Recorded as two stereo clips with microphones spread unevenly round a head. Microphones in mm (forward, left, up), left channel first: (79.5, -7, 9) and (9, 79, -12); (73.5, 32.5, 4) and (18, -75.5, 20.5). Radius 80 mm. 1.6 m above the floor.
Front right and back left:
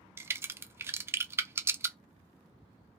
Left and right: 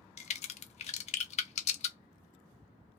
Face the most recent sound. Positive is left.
turn(degrees=55)